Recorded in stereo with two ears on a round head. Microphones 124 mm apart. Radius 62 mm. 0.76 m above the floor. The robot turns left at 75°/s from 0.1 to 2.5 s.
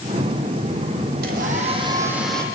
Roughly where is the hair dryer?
Right.